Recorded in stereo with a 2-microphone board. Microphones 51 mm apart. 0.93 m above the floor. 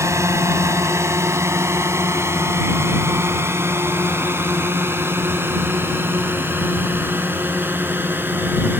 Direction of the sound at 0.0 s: 70° right (ahead or behind).